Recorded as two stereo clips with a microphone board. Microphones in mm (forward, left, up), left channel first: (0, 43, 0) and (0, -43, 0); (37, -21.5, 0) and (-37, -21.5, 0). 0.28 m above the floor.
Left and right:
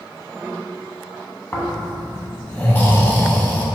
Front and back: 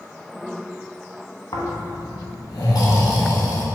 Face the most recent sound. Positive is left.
turn(degrees=25)